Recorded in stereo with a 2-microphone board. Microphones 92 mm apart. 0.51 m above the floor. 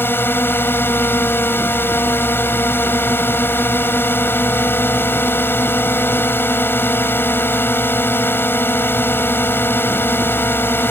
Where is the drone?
25° left (ahead or behind).